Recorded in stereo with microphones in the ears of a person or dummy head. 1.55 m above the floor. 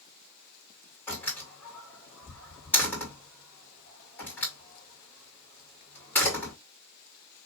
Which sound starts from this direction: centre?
A door slam, at 1.1 s.